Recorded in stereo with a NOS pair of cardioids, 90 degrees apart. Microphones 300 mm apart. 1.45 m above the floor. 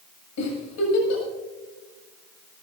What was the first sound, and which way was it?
A giggle, 65° left.